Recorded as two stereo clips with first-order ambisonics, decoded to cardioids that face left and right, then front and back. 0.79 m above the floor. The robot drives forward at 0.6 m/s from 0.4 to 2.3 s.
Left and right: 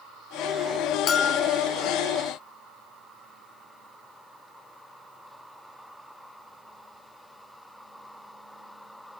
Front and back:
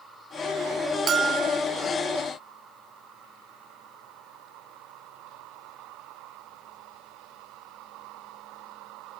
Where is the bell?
130° left, 0.6 m; by 1.6 s 155° left, 0.8 m.